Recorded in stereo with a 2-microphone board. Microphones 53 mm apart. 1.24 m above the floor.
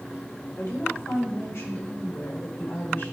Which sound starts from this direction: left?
A woman speaking, at 0.6 s.